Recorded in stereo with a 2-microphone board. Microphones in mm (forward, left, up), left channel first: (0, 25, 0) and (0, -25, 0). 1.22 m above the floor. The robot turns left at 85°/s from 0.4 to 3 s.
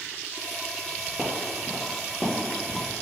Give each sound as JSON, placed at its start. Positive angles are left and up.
{"t": 1.2, "sound": "footsteps", "side_deg": -25, "distance_m": 1.3}